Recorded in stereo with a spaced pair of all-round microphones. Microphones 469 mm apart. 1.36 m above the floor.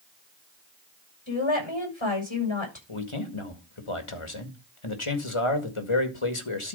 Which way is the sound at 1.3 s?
65° left (ahead or behind).